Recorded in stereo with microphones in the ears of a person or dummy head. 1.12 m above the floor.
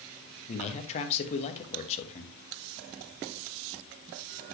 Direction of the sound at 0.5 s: 35° left (ahead or behind).